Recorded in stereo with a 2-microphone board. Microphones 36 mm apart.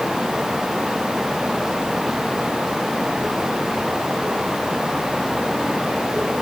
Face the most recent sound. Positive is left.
No sound to turn to.